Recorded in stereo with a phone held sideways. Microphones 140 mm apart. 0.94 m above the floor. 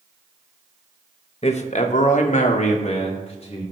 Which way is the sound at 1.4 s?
50° left (ahead or behind).